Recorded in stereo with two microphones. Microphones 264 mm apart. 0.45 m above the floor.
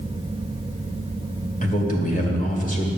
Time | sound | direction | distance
1.6 | a man speaking | 30° left (ahead or behind) | 2 m